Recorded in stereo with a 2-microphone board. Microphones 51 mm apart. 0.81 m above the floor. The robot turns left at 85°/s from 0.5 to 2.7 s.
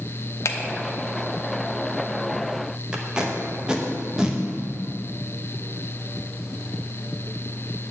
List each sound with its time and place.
0.5 s a finger snap: 65° left (ahead or behind), 0.6 m; by 0.6 s 70° left (ahead or behind), 0.6 m
2.9 s tape being pulled: 15° right (ahead or behind), 0.9 m